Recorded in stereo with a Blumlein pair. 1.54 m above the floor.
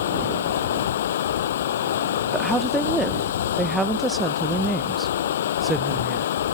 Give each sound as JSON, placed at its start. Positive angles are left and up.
{"t": 0.0, "sound": "running water", "azimuth_deg": 60}
{"t": 2.3, "sound": "a woman speaking", "azimuth_deg": -10}